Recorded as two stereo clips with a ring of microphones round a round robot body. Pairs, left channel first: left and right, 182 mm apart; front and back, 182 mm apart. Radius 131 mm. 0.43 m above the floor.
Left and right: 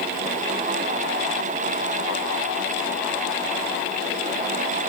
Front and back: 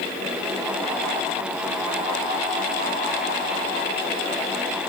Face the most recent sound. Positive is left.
No sound to turn to.